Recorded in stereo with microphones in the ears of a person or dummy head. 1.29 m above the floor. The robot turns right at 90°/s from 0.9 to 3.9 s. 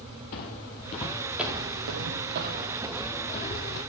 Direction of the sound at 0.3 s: 50° left (ahead or behind).